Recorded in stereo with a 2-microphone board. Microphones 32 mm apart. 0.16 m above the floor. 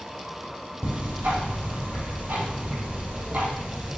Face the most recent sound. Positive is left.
turn(degrees=-70)  # may be behind; listen again after turning